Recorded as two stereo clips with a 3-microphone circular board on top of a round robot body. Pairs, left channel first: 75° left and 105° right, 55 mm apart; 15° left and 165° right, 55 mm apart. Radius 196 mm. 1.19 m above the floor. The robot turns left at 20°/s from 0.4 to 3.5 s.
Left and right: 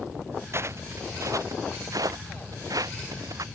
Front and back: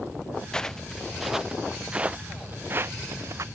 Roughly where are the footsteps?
Ahead right.